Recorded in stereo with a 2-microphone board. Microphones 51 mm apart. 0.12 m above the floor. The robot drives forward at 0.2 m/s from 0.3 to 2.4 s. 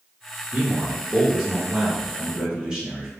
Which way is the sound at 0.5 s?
20° right (ahead or behind).